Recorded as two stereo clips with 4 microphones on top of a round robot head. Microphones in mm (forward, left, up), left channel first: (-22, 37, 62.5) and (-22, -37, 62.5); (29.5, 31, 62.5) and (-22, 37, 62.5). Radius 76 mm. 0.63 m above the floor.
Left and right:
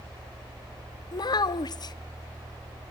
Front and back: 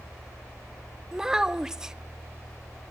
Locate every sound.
1.1 s a child speaking: 95° left, 0.6 m